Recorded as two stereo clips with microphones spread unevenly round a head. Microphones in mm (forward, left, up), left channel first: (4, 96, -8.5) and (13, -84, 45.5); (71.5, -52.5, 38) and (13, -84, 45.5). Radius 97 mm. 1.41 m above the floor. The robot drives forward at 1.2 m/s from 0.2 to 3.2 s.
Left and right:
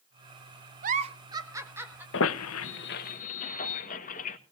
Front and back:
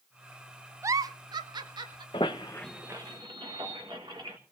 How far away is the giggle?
About 0.5 m.